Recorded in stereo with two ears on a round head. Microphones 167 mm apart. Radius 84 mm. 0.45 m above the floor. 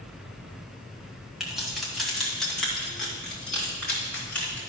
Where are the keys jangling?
Centre (ahead or behind), 1.8 m; by 4.6 s 10° left (ahead or behind), 3.5 m.